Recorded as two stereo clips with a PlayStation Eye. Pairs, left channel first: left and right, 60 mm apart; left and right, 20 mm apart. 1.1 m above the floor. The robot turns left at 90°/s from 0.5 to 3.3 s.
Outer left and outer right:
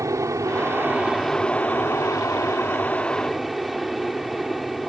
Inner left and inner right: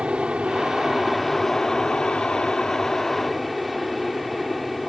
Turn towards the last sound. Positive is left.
turn(degrees=-5)